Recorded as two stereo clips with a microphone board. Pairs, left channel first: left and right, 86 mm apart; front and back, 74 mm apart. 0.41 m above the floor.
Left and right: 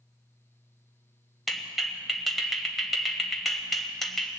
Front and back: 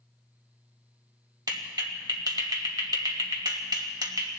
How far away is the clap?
About 1.5 m.